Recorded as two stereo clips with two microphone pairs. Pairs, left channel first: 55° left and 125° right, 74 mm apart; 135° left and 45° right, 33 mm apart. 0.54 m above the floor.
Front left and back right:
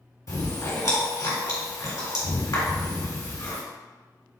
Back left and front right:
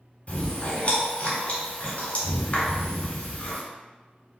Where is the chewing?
95° left, 1.8 m.